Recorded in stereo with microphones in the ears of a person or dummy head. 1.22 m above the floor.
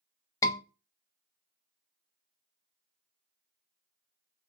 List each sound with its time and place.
0.4 s a scream: 10° left (ahead or behind), 1.0 m